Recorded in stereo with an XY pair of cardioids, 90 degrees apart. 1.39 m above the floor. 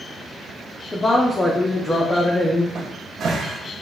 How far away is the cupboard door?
About 0.6 m.